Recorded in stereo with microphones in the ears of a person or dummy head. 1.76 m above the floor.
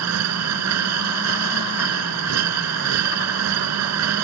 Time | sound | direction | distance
0.0 | a machine running | 80° right | ?